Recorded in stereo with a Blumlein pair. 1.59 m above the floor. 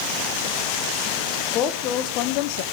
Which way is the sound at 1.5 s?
30° left.